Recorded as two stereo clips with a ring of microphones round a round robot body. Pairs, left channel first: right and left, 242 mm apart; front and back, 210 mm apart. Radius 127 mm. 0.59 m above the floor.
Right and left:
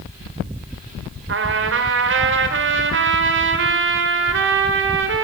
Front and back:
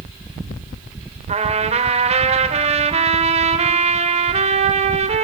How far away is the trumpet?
About 2.5 m.